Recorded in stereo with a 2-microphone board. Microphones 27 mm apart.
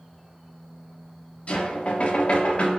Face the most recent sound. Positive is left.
turn(degrees=45)  # may be behind; listen again after turning